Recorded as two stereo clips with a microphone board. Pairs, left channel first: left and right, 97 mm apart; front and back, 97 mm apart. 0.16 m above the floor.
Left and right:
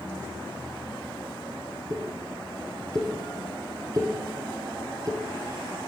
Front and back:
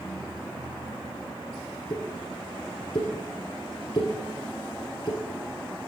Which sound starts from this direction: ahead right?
A pop, at 1.9 s.